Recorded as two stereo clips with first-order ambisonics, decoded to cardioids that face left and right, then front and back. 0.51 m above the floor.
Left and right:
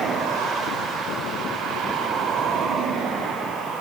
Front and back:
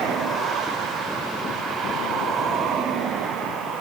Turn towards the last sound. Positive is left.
No sound to turn to.